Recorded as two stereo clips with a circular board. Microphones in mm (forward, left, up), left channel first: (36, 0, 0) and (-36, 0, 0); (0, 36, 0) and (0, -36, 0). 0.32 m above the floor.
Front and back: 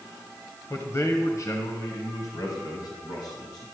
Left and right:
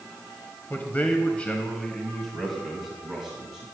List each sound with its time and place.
0.7 s a man speaking: 35° left, 1.3 m; by 3.6 s 10° right, 2.5 m